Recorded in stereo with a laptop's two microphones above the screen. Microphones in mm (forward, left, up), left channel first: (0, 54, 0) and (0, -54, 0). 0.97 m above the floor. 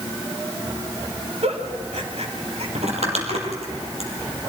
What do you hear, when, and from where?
1.4 s a giggle: 75° right (ahead or behind), 2 m
2.8 s crumpling: 75° right (ahead or behind), 4.5 m